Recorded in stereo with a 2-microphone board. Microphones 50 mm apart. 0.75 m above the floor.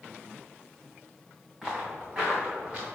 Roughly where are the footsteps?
Centre.